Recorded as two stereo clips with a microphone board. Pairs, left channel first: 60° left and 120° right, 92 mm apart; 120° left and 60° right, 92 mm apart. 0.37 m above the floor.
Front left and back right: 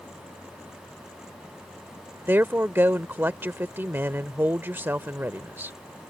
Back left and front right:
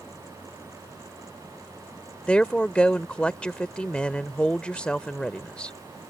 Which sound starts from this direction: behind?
A woman speaking, at 2.3 s.